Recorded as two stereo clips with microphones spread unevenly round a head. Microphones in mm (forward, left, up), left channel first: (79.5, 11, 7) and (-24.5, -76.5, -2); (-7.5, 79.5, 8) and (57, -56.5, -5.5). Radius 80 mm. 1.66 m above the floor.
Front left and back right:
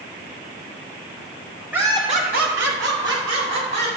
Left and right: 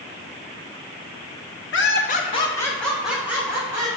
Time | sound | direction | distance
1.7 | laughter | 135° left | 1.3 m